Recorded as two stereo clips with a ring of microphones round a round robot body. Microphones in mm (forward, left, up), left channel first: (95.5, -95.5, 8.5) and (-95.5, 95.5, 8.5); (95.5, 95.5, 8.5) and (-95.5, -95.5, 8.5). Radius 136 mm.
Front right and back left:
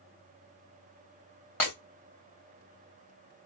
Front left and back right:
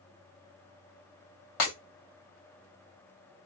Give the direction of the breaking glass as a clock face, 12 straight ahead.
11 o'clock.